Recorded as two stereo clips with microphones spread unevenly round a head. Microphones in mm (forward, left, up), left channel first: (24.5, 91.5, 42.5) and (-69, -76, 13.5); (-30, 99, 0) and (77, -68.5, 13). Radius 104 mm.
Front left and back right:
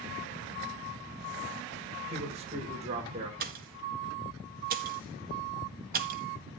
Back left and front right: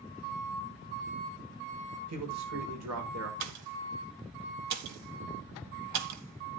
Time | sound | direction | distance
2.1 | a man speaking | 55° right | 5.5 m
3.4 | a pop | 70° right | 1.7 m